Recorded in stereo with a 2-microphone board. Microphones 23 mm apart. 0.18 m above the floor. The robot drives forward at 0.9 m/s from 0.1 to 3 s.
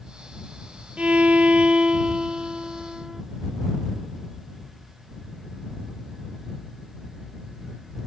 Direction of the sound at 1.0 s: 65° right (ahead or behind).